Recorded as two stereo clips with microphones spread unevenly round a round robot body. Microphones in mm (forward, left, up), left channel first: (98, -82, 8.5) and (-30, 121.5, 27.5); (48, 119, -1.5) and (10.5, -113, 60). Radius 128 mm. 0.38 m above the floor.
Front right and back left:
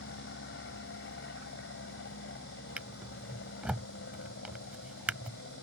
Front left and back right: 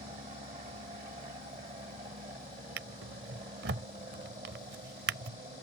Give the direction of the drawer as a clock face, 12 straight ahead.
5 o'clock.